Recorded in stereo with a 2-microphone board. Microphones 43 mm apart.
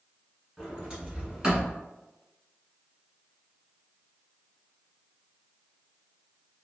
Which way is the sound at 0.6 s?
20° right (ahead or behind).